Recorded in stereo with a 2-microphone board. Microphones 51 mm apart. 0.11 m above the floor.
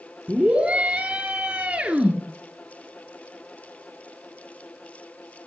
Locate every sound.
0.3 s a scream: 20° right (ahead or behind), 1.8 m